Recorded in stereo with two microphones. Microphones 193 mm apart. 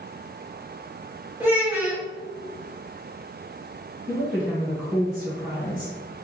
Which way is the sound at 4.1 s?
5° right (ahead or behind).